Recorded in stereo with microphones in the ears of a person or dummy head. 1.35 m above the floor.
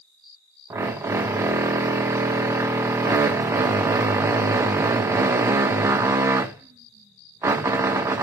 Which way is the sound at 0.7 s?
20° right (ahead or behind).